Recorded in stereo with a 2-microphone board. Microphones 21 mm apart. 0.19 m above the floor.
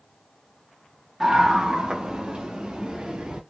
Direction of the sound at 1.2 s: 20° right (ahead or behind).